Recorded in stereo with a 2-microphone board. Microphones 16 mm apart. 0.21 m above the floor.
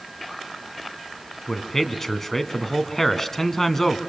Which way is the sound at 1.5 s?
15° left (ahead or behind).